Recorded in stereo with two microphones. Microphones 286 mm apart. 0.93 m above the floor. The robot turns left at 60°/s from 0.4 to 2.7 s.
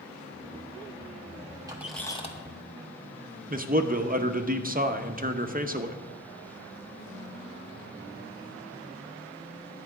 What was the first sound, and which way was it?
A squeak, 165° right.